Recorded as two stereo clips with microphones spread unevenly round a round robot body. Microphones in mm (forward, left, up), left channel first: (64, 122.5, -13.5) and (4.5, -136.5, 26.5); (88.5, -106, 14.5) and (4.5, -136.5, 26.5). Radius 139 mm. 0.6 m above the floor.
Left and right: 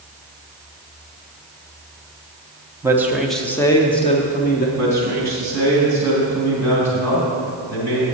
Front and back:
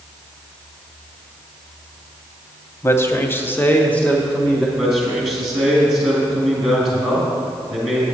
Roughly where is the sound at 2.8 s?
Ahead.